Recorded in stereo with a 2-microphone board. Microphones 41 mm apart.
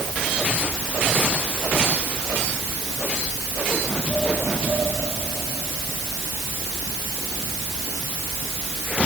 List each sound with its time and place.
Only background noise.